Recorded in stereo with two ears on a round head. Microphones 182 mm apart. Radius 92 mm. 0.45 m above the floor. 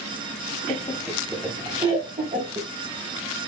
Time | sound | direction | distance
0.7 | laughter | 25° left (ahead or behind) | 0.8 m